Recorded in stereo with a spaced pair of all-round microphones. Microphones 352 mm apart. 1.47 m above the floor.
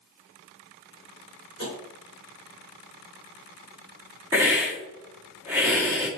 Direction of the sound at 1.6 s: 35° right (ahead or behind).